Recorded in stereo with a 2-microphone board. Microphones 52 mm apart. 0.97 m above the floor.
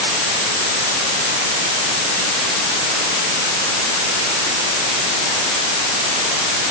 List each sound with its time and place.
Only background noise.